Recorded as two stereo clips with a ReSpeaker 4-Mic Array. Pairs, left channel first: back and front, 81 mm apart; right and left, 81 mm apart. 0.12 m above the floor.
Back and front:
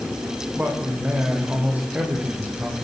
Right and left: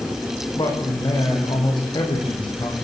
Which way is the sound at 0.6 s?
70° right.